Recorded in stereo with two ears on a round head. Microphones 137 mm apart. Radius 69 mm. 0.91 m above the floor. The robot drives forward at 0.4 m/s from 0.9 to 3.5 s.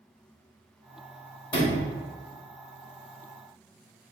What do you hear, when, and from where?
1.5 s a sliding door: 30° left (ahead or behind), 1.8 m